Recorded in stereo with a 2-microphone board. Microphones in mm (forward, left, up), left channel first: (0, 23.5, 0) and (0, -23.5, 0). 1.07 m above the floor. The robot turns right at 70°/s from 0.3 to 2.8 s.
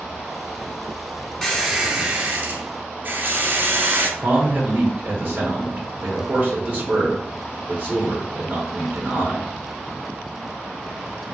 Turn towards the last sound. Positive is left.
turn(degrees=-35)  # may be behind; listen again after turning